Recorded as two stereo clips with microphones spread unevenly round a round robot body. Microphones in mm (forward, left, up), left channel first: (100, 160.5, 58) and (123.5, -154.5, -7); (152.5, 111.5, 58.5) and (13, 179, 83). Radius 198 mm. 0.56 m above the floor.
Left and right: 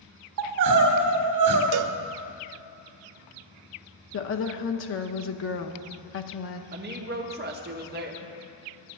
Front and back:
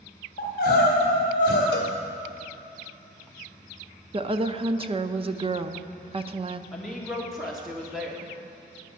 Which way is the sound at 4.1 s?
120° left.